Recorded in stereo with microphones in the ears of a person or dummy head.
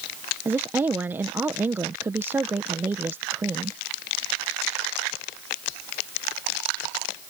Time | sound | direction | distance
0.5 | a woman speaking | 15° right (ahead or behind) | ?